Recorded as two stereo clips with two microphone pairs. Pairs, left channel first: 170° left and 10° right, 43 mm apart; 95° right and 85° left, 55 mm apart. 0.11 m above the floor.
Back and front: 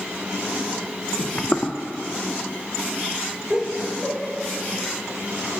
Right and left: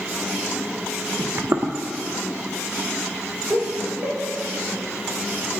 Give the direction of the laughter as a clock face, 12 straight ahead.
11 o'clock.